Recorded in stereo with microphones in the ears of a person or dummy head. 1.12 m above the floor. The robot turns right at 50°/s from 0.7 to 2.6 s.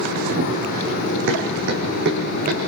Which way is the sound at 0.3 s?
45° right (ahead or behind).